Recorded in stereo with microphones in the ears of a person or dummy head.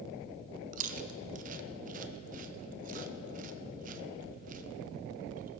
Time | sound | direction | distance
0.7 | chewing | 35° right (ahead or behind) | 0.6 m